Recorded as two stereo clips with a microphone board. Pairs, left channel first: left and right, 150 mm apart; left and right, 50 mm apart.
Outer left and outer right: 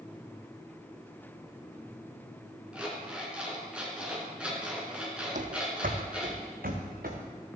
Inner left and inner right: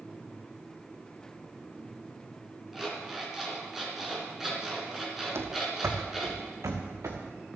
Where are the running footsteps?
55° right (ahead or behind), 1.2 m; by 7.2 s 75° right (ahead or behind), 2.5 m.